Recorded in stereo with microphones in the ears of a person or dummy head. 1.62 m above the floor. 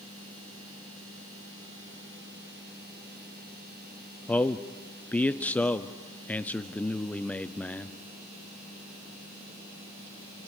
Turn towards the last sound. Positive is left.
turn(degrees=5)  # may be behind; listen again after turning